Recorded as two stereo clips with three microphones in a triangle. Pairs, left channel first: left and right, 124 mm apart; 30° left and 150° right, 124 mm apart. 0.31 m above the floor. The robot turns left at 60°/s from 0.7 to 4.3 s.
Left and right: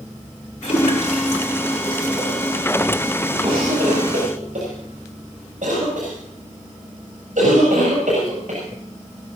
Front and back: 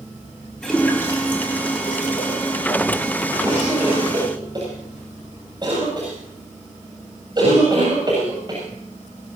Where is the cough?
45° right, 7.5 m; by 8.6 s 95° right, 7.5 m.